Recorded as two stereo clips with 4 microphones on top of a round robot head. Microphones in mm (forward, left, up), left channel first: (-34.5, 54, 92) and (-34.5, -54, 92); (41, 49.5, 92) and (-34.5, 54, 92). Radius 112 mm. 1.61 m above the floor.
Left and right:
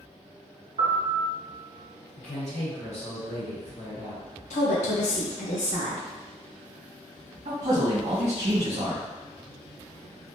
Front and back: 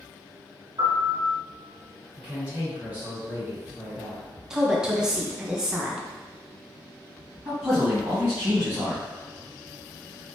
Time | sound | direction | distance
0.8 | a piano | 120° right | 0.7 m
2.2 | a woman speaking | 105° left | 1.5 m
4.5 | a woman speaking | 95° left | 0.6 m
7.5 | a man speaking | 110° right | 1.7 m